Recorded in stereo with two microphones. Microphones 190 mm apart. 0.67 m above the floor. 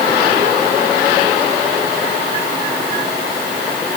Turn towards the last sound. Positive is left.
No sound to turn to.